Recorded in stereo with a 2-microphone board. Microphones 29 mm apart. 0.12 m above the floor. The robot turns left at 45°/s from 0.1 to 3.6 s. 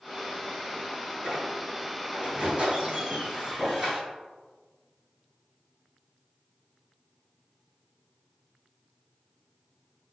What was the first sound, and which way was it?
A squeak, 75° right.